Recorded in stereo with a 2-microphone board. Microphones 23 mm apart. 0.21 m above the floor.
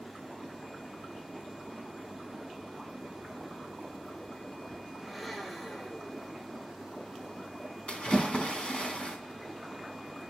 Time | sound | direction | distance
5.0 | a blender | 5° left (ahead or behind) | 7.5 m
7.9 | a splash | 50° left (ahead or behind) | 2.5 m